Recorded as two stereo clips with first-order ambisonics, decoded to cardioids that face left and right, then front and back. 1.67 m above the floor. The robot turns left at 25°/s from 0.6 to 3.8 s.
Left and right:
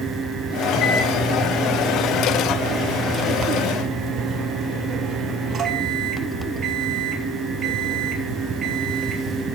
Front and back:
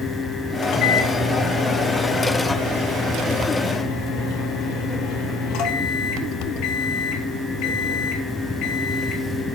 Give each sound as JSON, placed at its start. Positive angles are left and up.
{"t": 0.6, "sound": "a microwave", "azimuth_deg": 55, "distance_m": 2.5}